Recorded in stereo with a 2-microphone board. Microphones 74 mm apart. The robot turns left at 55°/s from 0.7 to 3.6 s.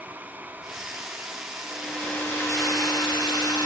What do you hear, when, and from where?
1.6 s a hair dryer: 175° right, 1.5 m; by 3.7 s 75° left, 1.5 m